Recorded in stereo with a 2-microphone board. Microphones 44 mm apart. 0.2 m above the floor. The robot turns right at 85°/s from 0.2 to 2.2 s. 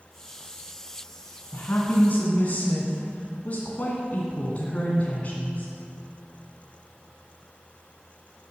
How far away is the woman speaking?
About 2 m.